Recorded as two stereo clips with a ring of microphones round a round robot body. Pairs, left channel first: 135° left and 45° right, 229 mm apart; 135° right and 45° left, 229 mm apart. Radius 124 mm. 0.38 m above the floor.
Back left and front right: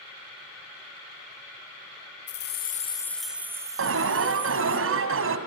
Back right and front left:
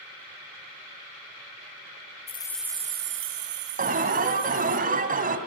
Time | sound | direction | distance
2.3 | keys jangling | 165° left | 1.1 m
3.8 | an alarm | 10° right | 2.5 m